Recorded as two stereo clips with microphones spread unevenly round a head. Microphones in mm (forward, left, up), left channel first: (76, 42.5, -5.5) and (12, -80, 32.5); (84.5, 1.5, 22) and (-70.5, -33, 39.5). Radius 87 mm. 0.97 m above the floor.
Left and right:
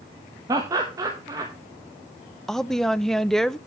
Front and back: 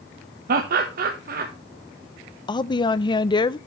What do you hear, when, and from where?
0.5 s laughter: 165° left, 1.1 m
2.5 s a woman speaking: 5° left, 0.5 m